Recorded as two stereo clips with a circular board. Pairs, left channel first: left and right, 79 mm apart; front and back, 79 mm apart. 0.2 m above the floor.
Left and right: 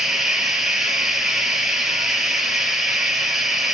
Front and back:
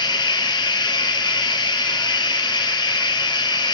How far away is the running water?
About 3 m.